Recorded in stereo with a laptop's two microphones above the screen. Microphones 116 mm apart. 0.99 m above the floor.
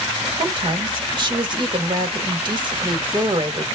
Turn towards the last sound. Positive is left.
turn(degrees=-40)  # may be behind; listen again after turning